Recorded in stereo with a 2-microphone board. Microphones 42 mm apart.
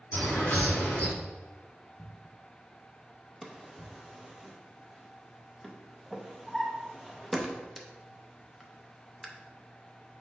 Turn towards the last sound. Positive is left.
turn(degrees=0)  # may be behind; listen again after turning